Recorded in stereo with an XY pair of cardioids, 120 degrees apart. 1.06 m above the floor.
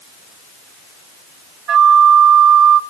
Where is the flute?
45° right, 1.1 m.